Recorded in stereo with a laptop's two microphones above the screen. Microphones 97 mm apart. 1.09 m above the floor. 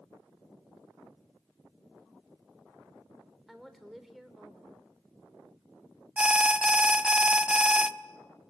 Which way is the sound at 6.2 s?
10° right (ahead or behind).